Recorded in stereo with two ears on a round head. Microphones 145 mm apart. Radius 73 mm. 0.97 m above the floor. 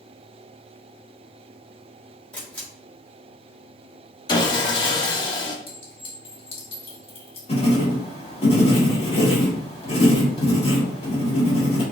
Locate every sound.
2.3 s a camera shutter: 10° left (ahead or behind), 2.5 m
4.3 s sawing: 30° left (ahead or behind), 0.7 m
5.7 s a clink: 40° left (ahead or behind), 1.7 m
7.5 s writing: 40° left (ahead or behind), 2 m